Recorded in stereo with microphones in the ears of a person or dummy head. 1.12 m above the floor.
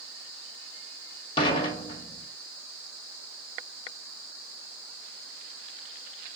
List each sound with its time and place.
1.4 s dishes clattering: 25° left (ahead or behind), 1.1 m